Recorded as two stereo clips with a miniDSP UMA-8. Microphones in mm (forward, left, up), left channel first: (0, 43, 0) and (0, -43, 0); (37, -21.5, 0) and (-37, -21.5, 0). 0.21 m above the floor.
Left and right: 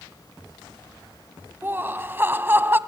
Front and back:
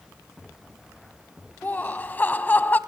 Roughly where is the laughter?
Ahead right.